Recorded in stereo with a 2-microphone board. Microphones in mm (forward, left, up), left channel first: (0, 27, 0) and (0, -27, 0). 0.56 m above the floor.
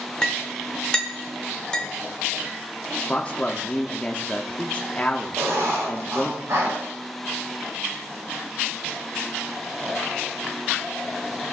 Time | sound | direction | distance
0.2 | a clink | 15° left (ahead or behind) | 1.1 m
3.1 | a man speaking | 25° left (ahead or behind) | 0.7 m
5.4 | writing | 70° right (ahead or behind) | 5.5 m